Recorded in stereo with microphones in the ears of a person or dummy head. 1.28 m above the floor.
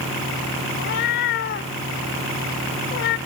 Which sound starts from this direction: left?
A cat meowing, at 0.8 s.